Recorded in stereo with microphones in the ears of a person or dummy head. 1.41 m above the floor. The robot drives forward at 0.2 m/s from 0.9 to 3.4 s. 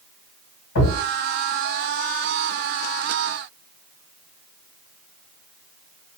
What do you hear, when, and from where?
0.8 s a thud: 55° left (ahead or behind), 2 m